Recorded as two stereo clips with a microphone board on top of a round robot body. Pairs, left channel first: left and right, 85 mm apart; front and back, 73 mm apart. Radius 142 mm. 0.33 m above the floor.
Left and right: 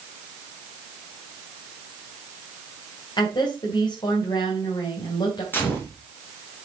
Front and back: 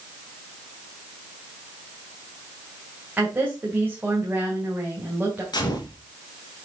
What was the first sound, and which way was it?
A woman speaking, 115° left.